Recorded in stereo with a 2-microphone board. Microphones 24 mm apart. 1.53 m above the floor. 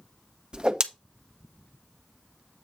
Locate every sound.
0.5 s a whoosh: 35° right (ahead or behind), 0.7 m